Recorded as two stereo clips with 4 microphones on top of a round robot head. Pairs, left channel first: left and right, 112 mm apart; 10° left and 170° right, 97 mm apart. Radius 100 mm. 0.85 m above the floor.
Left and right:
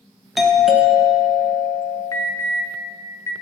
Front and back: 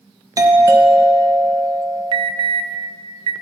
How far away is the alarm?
About 0.5 m.